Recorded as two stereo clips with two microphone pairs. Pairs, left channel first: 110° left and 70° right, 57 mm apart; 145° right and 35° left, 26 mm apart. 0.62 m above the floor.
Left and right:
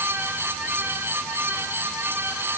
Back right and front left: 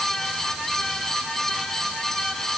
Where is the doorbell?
No doorbell in this recording.